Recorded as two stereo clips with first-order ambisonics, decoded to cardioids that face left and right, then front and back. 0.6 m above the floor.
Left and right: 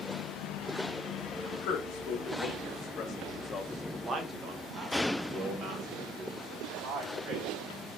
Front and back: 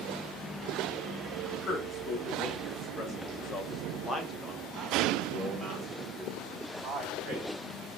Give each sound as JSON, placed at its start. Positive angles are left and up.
{"t": 1.5, "sound": "a man speaking", "azimuth_deg": 65, "distance_m": 1.9}